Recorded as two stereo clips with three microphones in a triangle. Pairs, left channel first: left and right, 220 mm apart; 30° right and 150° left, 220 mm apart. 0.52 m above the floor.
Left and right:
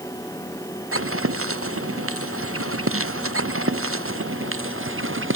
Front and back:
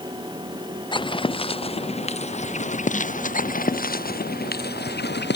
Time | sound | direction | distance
0.9 | footsteps | 100° right | ?